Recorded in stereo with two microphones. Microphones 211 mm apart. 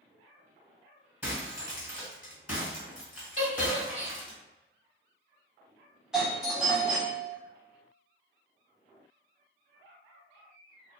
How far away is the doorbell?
About 1.2 m.